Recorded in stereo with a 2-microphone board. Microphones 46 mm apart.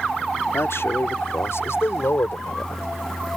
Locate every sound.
0.5 s a man speaking: 80° left; by 3.3 s 85° left